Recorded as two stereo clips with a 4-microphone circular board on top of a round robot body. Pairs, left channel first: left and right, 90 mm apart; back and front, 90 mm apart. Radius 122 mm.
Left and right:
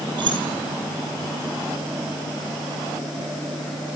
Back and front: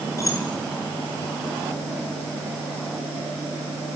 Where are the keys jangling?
125° right, 7 m.